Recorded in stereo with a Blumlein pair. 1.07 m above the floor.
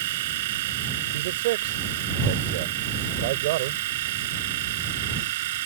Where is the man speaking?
55° right.